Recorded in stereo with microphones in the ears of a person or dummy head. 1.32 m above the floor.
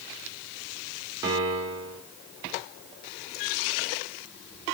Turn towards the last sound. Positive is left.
turn(degrees=-25)  # may be behind; listen again after turning